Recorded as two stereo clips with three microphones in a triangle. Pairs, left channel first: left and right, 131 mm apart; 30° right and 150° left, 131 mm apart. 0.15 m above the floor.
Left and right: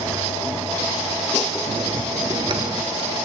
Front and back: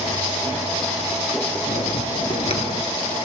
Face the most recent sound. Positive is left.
turn(degrees=-50)